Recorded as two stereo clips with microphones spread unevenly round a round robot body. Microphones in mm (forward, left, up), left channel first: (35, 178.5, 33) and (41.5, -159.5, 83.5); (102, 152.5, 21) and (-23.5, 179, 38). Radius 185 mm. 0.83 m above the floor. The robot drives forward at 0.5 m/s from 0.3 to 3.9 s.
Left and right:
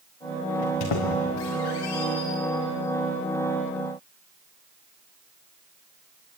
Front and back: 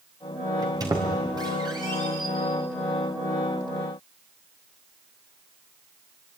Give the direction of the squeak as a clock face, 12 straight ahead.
8 o'clock.